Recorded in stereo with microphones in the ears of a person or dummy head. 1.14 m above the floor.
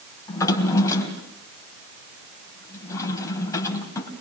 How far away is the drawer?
About 3.5 m.